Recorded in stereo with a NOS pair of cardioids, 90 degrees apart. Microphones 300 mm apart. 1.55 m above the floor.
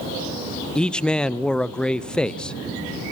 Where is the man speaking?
5° left, 0.5 m.